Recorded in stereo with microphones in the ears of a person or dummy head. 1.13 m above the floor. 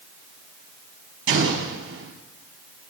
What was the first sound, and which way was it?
An explosion, 75° right (ahead or behind).